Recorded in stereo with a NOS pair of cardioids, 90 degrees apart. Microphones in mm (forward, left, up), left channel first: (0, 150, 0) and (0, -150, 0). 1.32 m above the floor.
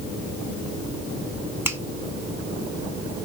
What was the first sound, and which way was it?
A finger snap, 10° right.